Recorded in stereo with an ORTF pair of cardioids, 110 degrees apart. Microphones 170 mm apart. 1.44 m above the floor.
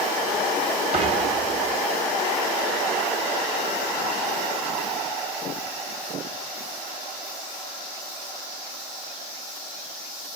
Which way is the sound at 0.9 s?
40° right.